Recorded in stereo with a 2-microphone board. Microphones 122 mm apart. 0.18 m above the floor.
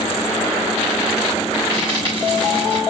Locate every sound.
1.7 s frying: 40° right (ahead or behind), 7 m